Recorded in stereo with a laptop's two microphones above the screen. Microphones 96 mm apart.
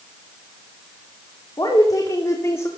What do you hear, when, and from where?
1.6 s a woman speaking: 45° left (ahead or behind), 3 m; by 2.7 s 25° left (ahead or behind), 1.9 m